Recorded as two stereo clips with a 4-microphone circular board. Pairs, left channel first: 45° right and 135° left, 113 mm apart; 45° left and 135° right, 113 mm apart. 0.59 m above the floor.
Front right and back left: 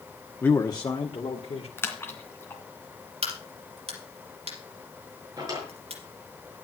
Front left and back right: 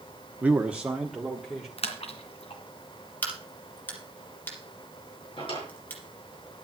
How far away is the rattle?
No rattle in this recording.